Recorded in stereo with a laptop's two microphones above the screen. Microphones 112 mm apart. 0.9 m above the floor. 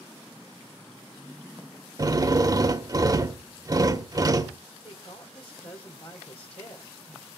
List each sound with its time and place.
2.0 s a drill: 35° right (ahead or behind), 1.0 m
4.8 s a woman speaking: 65° left (ahead or behind), 3 m